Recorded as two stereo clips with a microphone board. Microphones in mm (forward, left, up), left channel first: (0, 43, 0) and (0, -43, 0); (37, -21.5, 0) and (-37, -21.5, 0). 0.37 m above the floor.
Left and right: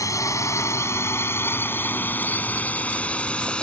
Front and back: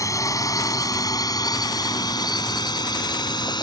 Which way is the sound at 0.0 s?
40° left.